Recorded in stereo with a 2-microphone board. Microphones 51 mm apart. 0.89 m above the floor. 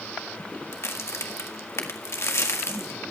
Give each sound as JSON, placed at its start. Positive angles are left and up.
{"t": 0.7, "sound": "a crack", "side_deg": 60, "distance_m": 1.7}